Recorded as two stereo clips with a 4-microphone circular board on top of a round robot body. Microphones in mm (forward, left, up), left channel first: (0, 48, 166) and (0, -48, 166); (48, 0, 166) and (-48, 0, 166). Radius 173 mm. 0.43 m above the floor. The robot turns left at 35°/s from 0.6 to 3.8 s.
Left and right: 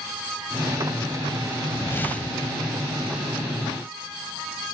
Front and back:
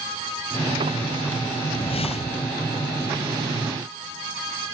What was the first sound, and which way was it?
A whoosh, 30° left.